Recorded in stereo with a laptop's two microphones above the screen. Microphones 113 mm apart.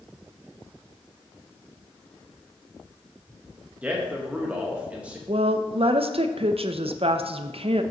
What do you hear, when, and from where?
3.8 s a man speaking: 15° right (ahead or behind), 1.1 m
5.3 s a woman speaking: 65° right (ahead or behind), 0.5 m